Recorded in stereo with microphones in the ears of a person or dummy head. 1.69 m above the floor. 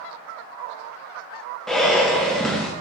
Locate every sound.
1.7 s breathing: 5° left (ahead or behind), 0.5 m